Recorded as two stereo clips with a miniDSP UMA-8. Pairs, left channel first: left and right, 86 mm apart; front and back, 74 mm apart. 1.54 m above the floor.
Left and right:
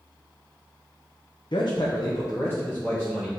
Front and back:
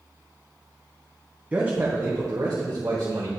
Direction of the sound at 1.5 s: 110° left.